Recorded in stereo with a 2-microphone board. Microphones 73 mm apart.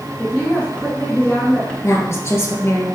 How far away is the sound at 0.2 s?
About 1.7 m.